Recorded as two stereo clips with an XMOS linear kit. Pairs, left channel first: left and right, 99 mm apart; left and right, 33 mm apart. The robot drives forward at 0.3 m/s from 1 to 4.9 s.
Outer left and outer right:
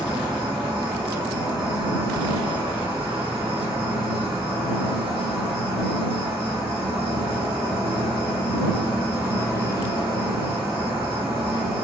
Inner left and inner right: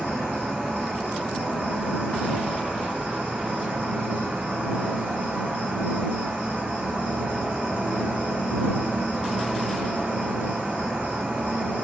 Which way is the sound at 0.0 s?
45° right (ahead or behind).